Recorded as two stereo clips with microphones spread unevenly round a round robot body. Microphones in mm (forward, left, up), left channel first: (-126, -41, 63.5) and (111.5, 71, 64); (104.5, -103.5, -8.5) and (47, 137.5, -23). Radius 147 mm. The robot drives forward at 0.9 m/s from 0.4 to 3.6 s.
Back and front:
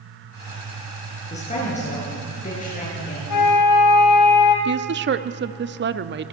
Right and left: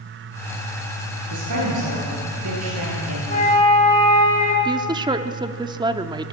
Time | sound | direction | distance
1.3 | a woman speaking | 140° left | 9.5 m
3.3 | a flute | 140° right | 2 m
4.7 | a woman speaking | 45° left | 1.0 m